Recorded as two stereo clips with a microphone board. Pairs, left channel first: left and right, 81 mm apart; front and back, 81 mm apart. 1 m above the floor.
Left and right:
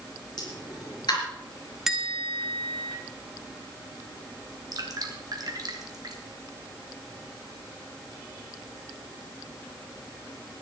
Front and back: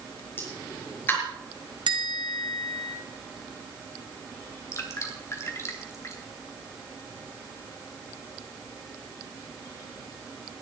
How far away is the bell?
About 1.8 m.